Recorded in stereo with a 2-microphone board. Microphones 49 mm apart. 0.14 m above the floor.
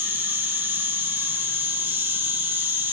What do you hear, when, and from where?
0.0 s an insect: 40° right (ahead or behind), 1.1 m